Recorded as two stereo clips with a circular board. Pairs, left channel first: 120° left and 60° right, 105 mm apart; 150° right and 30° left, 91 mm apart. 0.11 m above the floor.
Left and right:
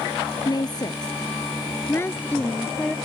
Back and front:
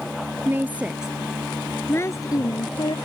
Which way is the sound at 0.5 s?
90° left.